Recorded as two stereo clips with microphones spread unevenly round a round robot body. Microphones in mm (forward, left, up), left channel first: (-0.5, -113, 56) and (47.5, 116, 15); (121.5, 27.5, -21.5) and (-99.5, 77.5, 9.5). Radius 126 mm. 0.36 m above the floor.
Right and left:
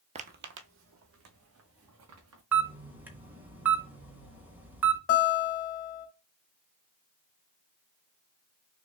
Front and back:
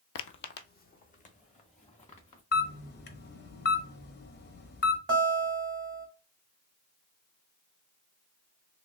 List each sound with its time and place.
0.1 s footsteps: 10° left, 0.5 m; by 2.4 s 50° left, 3 m
2.5 s a camera shutter: 5° left, 1.0 m
5.1 s a guitar: 135° right, 2.5 m